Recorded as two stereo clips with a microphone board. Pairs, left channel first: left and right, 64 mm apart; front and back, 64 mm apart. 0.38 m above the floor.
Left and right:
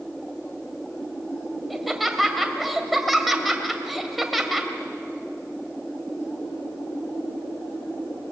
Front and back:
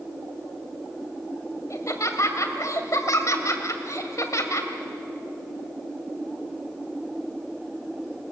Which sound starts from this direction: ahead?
Laughter, at 1.7 s.